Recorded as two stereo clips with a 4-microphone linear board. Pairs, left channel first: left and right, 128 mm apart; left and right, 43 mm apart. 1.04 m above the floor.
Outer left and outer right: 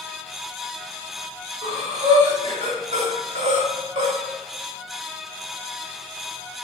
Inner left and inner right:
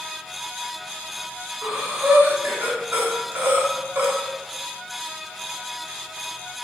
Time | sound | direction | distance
1.6 | breathing | 60° right (ahead or behind) | 3 m